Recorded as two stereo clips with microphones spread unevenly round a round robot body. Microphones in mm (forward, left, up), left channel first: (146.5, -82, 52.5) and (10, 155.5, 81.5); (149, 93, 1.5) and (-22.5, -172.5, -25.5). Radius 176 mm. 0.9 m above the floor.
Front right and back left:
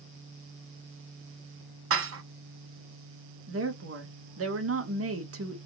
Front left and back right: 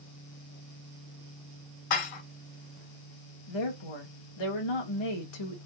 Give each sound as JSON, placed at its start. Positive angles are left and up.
{"t": 1.9, "sound": "dishes clattering", "azimuth_deg": 75, "distance_m": 1.0}
{"t": 3.5, "sound": "a woman speaking", "azimuth_deg": 80, "distance_m": 1.8}